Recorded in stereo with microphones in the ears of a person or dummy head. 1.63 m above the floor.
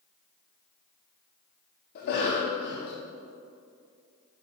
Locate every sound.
1.9 s a cough: 50° left (ahead or behind), 0.7 m